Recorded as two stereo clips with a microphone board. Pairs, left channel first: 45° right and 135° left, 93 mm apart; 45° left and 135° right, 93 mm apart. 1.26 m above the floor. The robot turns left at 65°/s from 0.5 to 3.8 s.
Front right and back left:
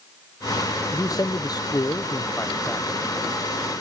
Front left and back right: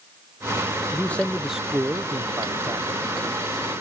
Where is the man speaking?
10° right; by 3.0 s 145° right.